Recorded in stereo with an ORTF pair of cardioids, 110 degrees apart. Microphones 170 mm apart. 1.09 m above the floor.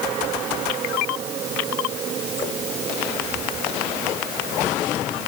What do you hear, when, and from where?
Only background noise.